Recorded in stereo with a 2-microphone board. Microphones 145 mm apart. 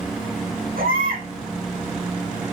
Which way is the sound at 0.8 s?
85° right.